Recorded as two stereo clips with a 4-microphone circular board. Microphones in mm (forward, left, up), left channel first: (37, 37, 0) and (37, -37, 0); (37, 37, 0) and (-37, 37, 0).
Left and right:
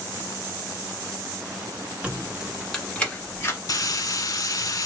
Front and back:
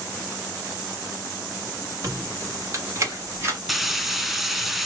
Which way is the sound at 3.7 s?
90° left.